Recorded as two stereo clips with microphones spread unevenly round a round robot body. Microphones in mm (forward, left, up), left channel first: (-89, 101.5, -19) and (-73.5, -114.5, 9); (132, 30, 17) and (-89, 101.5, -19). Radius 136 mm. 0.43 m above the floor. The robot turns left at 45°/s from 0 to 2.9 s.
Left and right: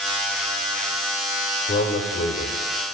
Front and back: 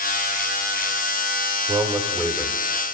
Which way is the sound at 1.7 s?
100° left.